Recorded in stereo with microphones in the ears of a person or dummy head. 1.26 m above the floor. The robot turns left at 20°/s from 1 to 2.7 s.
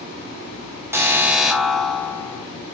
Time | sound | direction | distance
0.9 | an alarm | 10° right (ahead or behind) | 1.5 m